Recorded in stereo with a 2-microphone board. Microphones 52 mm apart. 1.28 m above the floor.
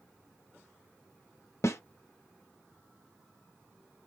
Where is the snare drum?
60° left (ahead or behind), 1.0 m.